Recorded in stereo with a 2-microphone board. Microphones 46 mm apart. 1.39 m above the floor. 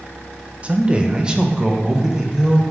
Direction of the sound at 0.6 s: 25° right (ahead or behind).